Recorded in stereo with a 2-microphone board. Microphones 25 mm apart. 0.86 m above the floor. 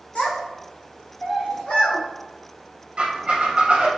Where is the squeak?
40° right (ahead or behind), 0.7 m.